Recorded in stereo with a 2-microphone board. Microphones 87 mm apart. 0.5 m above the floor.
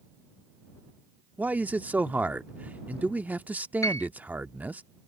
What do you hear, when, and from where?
1.4 s a man speaking: 20° right (ahead or behind)
3.8 s a piano: 40° left (ahead or behind)